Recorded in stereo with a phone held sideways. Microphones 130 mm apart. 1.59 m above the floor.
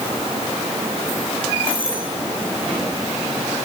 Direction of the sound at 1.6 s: 45° right (ahead or behind).